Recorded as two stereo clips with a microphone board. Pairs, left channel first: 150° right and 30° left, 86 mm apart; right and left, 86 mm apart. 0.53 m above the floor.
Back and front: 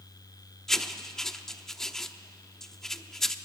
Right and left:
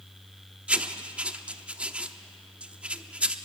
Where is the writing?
135° left, 0.8 m.